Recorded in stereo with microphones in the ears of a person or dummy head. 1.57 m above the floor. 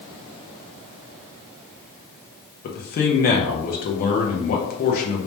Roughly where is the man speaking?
Left.